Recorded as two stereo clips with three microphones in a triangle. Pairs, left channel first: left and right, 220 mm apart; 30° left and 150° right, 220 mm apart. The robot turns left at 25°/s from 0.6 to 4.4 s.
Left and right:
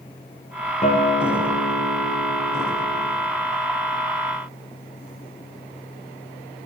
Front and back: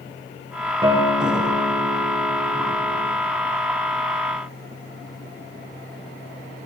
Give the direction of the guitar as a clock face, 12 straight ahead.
7 o'clock.